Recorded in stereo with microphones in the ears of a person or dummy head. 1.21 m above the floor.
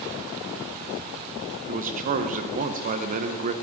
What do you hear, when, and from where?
1.7 s a man speaking: 40° right (ahead or behind), 0.8 m